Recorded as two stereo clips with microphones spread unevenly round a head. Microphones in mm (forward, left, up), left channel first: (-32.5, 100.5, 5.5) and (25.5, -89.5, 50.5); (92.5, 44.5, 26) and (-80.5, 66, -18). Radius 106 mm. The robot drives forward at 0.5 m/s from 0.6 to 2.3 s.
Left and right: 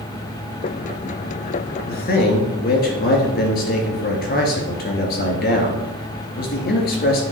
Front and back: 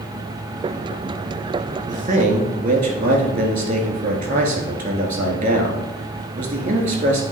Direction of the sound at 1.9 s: 140° left.